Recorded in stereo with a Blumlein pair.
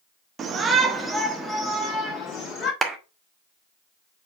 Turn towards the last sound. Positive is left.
turn(degrees=-10)